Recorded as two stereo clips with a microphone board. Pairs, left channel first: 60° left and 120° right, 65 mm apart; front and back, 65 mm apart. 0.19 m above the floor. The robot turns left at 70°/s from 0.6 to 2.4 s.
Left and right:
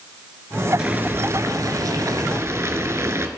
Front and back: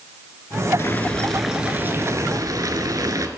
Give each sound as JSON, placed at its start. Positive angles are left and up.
{"t": 0.8, "sound": "boiling", "azimuth_deg": -50, "distance_m": 0.9}